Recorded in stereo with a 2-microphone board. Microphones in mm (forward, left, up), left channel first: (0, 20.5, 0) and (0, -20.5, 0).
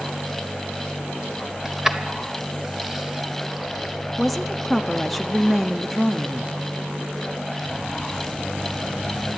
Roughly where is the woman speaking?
Centre.